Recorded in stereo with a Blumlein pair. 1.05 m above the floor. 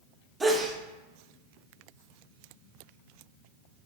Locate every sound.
0.4 s a sneeze: 10° right, 0.6 m